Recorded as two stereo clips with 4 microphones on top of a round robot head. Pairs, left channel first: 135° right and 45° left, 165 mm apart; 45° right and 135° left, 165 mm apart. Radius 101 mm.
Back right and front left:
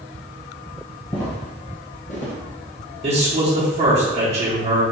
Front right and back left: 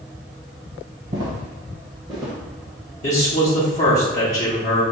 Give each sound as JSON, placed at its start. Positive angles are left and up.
{"t": 1.1, "sound": "footsteps", "azimuth_deg": 170, "distance_m": 1.7}
{"t": 3.0, "sound": "a man speaking", "azimuth_deg": 0, "distance_m": 0.9}